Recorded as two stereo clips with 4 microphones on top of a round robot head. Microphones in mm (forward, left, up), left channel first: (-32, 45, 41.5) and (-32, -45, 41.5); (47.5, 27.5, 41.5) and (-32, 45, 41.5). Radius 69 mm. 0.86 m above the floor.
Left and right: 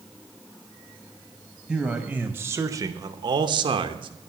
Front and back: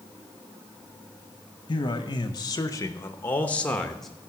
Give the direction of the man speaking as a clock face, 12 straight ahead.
12 o'clock.